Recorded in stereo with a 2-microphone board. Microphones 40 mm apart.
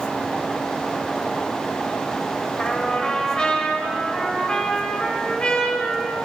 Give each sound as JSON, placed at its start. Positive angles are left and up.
{"t": 2.6, "sound": "a trumpet", "side_deg": 20, "distance_m": 1.9}